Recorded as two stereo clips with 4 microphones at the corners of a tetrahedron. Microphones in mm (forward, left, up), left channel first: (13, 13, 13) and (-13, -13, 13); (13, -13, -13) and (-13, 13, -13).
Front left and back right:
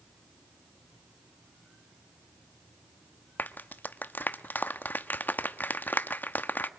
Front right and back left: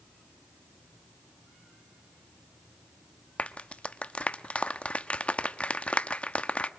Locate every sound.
3.4 s a clap: 10° left, 1.0 m